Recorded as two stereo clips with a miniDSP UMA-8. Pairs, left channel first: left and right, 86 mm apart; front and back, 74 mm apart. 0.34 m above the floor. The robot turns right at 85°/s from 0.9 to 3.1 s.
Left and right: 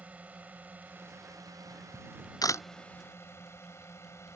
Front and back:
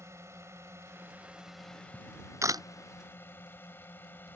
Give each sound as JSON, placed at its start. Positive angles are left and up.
{"t": 0.0, "sound": "a drone", "azimuth_deg": -155}
{"t": 1.9, "sound": "a camera shutter", "azimuth_deg": 90}